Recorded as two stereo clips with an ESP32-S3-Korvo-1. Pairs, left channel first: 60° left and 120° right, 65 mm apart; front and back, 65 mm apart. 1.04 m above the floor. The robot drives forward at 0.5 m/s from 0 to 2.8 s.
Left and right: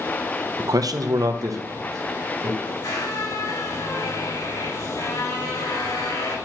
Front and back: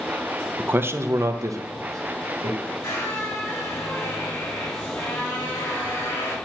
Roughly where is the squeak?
Ahead left.